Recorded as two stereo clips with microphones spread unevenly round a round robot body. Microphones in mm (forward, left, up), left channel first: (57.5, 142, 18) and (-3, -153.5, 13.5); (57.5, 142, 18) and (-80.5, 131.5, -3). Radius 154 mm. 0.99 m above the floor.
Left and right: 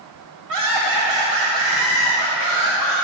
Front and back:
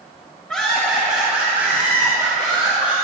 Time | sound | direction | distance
0.5 | laughter | 80° right | 4 m